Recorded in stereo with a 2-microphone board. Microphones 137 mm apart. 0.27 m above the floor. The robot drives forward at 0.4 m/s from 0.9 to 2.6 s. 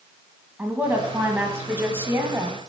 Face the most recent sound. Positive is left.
turn(degrees=-20)  # may be behind; listen again after turning